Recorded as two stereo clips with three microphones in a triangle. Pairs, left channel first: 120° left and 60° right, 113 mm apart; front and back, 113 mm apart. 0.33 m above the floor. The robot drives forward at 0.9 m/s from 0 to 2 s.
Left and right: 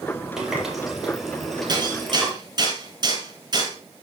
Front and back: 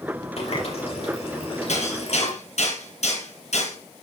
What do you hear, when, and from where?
0.4 s a running tap: 25° left, 6 m; by 2.3 s 35° left, 5 m
1.7 s hammering: 10° right, 8.5 m